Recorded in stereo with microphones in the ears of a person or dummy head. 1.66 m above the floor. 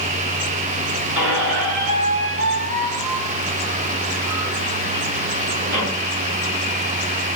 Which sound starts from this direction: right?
A squeak, at 1.1 s.